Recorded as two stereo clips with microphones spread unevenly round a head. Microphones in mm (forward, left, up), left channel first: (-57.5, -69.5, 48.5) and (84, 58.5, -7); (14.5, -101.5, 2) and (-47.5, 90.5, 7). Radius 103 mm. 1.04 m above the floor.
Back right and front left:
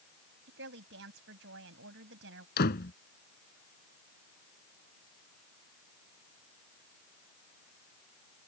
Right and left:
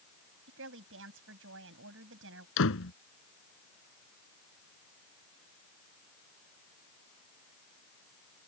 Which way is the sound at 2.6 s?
100° right.